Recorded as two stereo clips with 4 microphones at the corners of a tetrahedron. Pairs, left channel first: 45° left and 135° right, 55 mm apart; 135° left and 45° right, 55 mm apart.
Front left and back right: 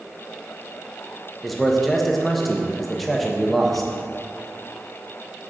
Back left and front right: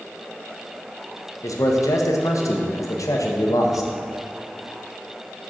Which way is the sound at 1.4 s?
135° left.